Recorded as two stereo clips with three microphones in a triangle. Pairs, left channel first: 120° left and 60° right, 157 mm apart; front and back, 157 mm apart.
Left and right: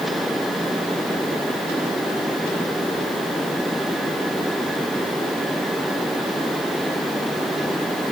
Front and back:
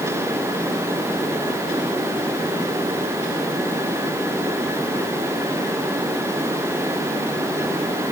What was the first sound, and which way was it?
Only background noise.